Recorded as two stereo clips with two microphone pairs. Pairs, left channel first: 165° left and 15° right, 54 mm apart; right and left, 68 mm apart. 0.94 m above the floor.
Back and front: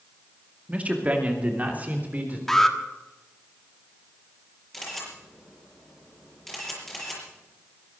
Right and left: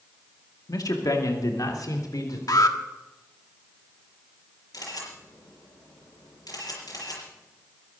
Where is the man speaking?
75° right, 2 m; by 2.4 s 70° right, 4 m.